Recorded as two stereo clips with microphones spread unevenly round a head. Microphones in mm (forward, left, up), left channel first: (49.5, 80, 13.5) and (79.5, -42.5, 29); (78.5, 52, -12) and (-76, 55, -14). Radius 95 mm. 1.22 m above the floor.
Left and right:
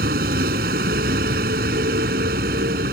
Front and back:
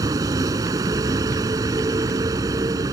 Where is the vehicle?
105° right.